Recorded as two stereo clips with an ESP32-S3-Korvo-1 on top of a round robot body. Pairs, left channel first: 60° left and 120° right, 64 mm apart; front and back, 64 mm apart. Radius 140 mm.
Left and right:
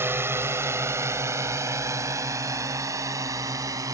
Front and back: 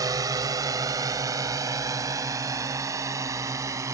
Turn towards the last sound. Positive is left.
turn(degrees=-150)